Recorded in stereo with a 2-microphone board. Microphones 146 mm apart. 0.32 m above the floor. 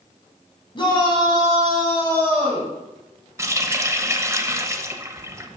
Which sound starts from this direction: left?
A shout, at 0.8 s.